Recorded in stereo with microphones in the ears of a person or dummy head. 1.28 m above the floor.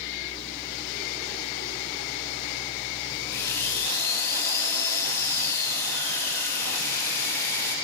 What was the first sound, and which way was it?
A running tap, 15° left (ahead or behind).